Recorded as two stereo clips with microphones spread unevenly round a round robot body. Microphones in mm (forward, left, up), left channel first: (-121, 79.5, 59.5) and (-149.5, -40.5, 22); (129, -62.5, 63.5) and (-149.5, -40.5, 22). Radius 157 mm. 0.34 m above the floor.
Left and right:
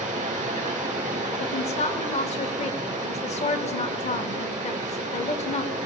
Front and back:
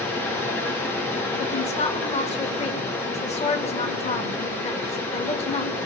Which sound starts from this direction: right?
Running water, at 0.0 s.